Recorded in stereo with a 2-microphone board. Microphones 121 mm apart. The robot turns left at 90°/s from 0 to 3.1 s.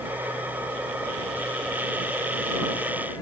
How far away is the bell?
I don't hear a bell.